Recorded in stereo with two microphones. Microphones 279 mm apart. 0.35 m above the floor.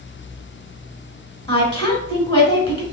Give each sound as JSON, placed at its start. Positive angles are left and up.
{"t": 1.5, "sound": "a woman speaking", "side_deg": 20, "distance_m": 1.2}